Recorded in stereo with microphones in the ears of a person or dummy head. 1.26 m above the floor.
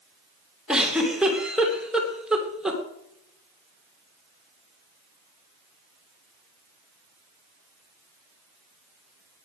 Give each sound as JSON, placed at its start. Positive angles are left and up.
{"t": 0.7, "sound": "a giggle", "side_deg": 0, "distance_m": 2.5}